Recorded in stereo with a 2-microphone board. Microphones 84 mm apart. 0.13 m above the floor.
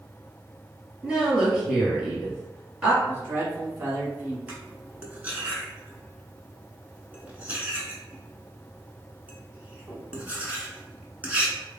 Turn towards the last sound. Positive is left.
turn(degrees=-20)  # may be behind; listen again after turning